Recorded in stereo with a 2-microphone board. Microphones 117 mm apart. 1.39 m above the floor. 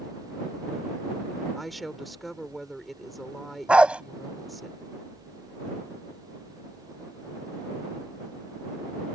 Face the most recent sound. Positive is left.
turn(degrees=-10)  # may be behind; listen again after turning